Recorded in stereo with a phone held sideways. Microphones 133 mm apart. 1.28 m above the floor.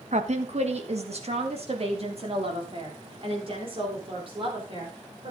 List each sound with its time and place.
0.1 s a woman speaking: 60° right (ahead or behind), 1.4 m; by 5.3 s 40° right (ahead or behind), 5 m